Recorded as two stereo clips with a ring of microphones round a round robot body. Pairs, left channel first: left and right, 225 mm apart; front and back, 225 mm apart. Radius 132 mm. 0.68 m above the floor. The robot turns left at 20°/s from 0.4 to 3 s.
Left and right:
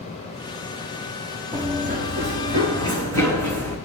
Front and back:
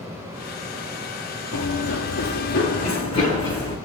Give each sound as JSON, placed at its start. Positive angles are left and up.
{"t": 1.5, "sound": "running footsteps", "azimuth_deg": -15, "distance_m": 1.0}